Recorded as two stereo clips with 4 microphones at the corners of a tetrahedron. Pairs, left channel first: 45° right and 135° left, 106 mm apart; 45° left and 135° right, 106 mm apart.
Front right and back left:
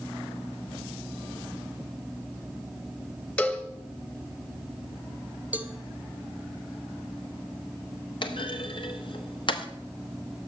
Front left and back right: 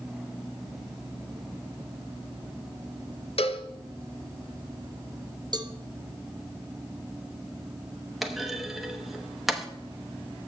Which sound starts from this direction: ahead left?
A cowbell, at 3.4 s.